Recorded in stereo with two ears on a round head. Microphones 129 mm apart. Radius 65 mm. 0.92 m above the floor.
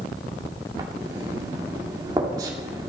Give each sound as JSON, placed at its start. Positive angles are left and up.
{"t": 0.8, "sound": "writing", "side_deg": -25, "distance_m": 2.5}